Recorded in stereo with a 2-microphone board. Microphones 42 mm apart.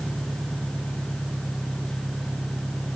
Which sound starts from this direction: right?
An engine running, at 0.0 s.